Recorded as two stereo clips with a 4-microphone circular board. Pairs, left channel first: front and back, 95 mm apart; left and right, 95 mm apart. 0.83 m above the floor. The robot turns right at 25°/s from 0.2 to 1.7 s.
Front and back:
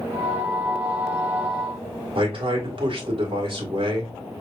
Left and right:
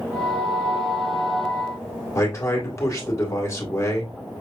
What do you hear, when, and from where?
2.1 s a man speaking: 150° left, 1.8 m